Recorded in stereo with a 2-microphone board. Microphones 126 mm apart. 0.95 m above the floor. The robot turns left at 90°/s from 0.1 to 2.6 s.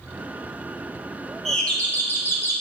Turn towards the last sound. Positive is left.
turn(degrees=15)  # may be behind; listen again after turning